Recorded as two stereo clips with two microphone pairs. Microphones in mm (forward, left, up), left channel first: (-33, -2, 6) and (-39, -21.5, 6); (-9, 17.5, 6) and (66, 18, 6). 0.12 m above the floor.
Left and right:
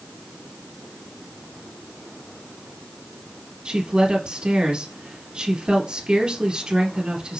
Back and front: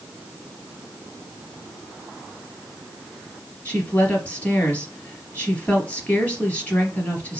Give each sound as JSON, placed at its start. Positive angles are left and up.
{"t": 3.6, "sound": "a woman speaking", "azimuth_deg": -115, "distance_m": 3.0}